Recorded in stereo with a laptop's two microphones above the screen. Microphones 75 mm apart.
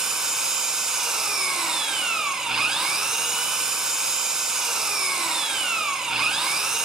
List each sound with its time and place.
0.0 s an engine running: 5° right (ahead or behind), 2.5 m